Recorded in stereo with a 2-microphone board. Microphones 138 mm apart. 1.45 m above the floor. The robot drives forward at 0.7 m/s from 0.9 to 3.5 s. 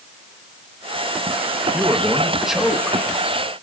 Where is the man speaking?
5° right (ahead or behind), 1.2 m; by 3.0 s centre (ahead or behind), 2 m.